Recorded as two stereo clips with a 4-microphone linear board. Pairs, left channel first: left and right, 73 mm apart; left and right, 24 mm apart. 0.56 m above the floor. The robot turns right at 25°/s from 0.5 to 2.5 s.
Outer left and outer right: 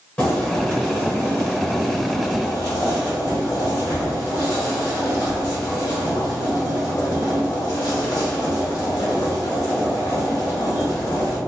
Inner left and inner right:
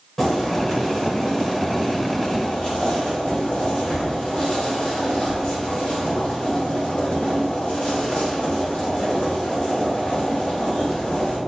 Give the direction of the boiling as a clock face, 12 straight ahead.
11 o'clock.